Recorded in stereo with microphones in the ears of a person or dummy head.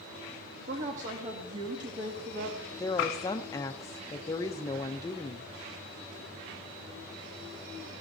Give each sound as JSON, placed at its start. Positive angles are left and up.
{"t": 0.7, "sound": "a woman speaking", "side_deg": -40, "distance_m": 2.5}
{"t": 2.7, "sound": "a woman speaking", "side_deg": 20, "distance_m": 0.7}